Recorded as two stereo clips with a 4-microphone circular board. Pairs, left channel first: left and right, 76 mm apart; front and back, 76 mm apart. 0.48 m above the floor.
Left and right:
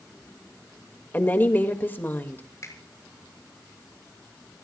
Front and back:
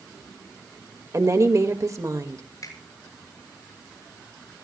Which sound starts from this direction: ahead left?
A finger snap, at 2.6 s.